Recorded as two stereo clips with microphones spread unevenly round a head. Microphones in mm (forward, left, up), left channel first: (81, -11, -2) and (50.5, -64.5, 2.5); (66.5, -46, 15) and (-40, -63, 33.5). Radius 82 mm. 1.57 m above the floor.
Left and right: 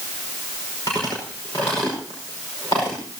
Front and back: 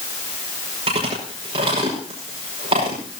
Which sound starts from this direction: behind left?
Chewing, at 0.9 s.